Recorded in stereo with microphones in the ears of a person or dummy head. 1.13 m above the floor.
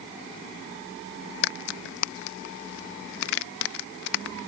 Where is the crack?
65° left (ahead or behind).